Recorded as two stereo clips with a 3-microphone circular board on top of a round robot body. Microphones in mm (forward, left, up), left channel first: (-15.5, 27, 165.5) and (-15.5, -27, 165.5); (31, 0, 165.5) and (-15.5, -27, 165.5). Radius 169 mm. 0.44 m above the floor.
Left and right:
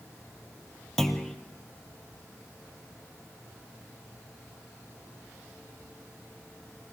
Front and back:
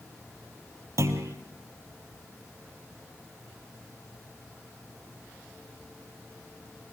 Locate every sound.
1.0 s a clunk: 170° left, 2.5 m